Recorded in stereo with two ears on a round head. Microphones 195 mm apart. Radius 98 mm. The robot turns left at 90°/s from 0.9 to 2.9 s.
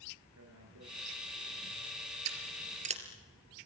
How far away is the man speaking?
About 10 m.